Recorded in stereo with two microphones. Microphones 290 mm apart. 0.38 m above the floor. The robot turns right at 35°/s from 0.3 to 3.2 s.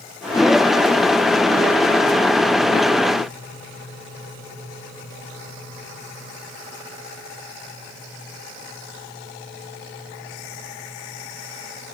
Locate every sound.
Only background noise.